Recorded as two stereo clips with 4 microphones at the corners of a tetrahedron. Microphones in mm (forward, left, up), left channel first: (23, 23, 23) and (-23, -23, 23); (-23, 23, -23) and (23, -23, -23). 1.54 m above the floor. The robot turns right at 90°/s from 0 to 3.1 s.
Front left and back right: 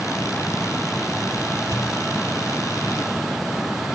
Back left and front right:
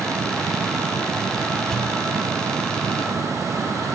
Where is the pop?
145° right, 2.5 m; by 2.0 s 120° right, 2.5 m.